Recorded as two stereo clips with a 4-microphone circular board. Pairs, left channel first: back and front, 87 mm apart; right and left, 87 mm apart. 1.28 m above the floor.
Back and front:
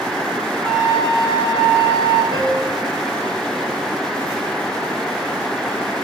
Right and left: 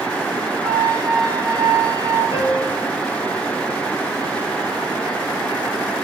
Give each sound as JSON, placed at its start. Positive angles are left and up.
{"t": 0.6, "sound": "a flute", "azimuth_deg": 30, "distance_m": 6.0}
{"t": 2.3, "sound": "a piano", "azimuth_deg": -30, "distance_m": 4.0}